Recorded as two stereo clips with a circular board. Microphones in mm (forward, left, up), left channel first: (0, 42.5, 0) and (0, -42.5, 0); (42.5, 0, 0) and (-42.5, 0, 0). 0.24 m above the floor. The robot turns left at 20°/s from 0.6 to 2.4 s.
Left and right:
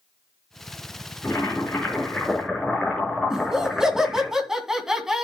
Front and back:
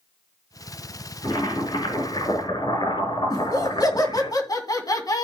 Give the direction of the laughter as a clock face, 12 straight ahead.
12 o'clock.